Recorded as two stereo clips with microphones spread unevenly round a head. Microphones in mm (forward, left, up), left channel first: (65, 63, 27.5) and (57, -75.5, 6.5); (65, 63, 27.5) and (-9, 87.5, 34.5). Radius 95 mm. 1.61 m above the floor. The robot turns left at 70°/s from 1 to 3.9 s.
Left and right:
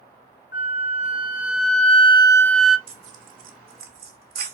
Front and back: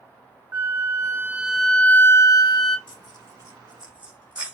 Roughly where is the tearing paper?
Ahead right.